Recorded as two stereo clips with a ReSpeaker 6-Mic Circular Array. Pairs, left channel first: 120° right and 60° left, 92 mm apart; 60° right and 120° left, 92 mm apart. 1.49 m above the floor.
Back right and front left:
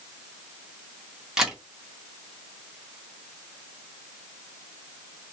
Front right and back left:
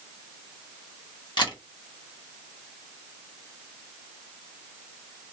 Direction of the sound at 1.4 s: 25° right.